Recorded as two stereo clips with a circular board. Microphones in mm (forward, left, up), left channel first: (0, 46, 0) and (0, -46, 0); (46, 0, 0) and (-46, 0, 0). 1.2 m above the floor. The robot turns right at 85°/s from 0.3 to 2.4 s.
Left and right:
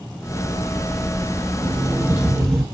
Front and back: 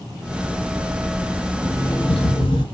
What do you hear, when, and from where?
1.6 s an alarm clock: 65° right, 0.9 m; by 2.6 s 5° left, 0.9 m